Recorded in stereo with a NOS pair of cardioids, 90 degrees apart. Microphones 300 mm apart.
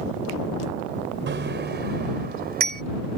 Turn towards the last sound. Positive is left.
turn(degrees=-30)